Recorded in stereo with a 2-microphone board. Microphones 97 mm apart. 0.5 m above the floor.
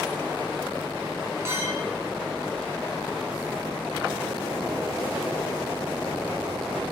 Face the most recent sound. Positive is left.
turn(degrees=-25)  # may be behind; listen again after turning